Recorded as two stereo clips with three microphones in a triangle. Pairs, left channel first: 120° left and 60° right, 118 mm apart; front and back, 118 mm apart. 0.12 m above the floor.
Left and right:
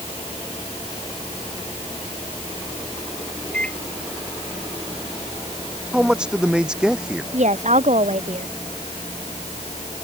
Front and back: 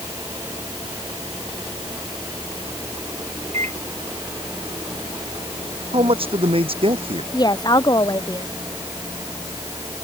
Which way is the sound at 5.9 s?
140° right.